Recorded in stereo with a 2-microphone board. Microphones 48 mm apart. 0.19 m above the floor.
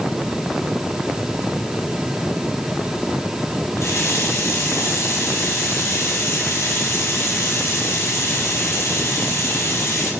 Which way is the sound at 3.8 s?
70° left (ahead or behind).